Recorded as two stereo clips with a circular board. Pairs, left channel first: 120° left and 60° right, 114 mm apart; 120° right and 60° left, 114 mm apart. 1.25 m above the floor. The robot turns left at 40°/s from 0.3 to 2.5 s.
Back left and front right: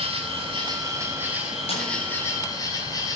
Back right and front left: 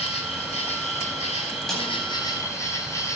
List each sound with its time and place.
0.0 s an insect: 95° right, 4.5 m; by 3.2 s 175° left, 4.5 m
1.7 s a snare drum: 155° left, 9 m; by 1.9 s 145° left, 9 m